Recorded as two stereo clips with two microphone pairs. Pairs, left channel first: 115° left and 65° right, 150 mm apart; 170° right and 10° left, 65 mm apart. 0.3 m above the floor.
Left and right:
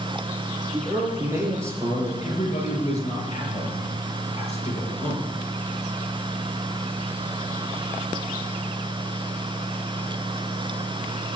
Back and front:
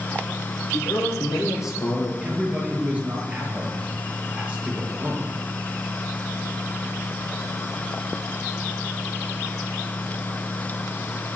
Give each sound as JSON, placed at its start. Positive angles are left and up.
{"t": 0.7, "sound": "a man speaking", "azimuth_deg": -135, "distance_m": 6.0}
{"t": 2.2, "sound": "a man speaking", "azimuth_deg": 75, "distance_m": 5.5}